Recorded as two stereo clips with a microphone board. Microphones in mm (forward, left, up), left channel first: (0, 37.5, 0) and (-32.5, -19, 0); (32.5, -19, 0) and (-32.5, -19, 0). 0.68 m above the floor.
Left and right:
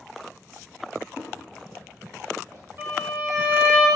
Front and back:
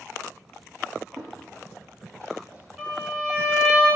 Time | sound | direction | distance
1.2 | footsteps | 175° left | 1.6 m
2.8 | a violin | 115° right | 1.4 m